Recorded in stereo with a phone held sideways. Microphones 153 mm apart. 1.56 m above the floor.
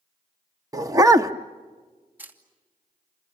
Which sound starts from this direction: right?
A dog barking, at 0.7 s.